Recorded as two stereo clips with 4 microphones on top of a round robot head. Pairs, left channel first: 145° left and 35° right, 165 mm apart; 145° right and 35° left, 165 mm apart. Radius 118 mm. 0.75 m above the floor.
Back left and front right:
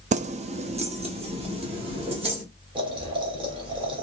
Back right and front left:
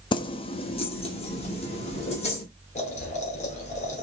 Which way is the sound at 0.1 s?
80° right.